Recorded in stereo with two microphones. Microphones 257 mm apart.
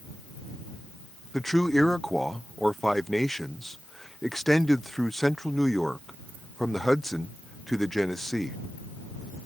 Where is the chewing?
No chewing in this recording.